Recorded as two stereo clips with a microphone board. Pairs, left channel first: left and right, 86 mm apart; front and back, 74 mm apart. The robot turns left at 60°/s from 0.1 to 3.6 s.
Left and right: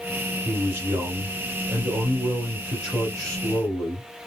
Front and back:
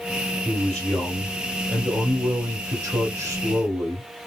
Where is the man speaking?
40° right, 1.6 m; by 4.0 s 130° left, 1.6 m.